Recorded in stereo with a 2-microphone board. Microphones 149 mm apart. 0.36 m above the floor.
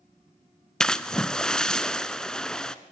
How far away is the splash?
About 0.6 m.